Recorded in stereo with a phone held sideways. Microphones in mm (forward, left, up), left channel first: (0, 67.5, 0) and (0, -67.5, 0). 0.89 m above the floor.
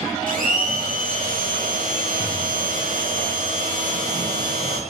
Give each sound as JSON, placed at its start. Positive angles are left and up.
{"t": 0.3, "sound": "a blender", "side_deg": -80, "distance_m": 4.0}